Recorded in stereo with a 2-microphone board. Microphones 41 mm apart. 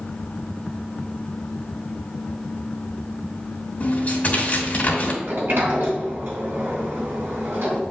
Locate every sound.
3.8 s tearing paper: 35° left (ahead or behind), 2.5 m
5.2 s a sliding door: 65° right (ahead or behind), 3 m